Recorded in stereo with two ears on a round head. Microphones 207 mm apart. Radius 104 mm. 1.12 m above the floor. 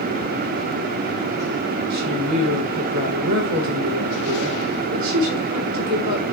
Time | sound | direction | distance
1.9 | a woman speaking | 85° right | 4 m